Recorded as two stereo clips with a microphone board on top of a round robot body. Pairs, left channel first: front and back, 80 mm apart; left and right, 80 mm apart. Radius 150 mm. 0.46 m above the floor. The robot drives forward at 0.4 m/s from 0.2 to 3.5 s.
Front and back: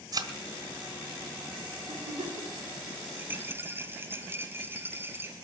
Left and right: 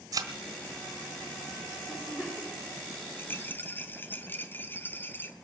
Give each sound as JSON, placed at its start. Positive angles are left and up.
{"t": 0.1, "sound": "a thud", "azimuth_deg": -140, "distance_m": 1.4}
{"t": 1.9, "sound": "a giggle", "azimuth_deg": 165, "distance_m": 5.5}
{"t": 3.2, "sound": "a rattle", "azimuth_deg": 130, "distance_m": 1.2}